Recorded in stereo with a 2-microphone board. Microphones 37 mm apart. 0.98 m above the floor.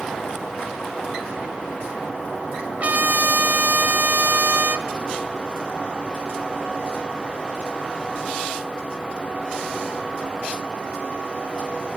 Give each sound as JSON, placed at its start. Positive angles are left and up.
{"t": 2.8, "sound": "a trumpet", "side_deg": -45, "distance_m": 1.7}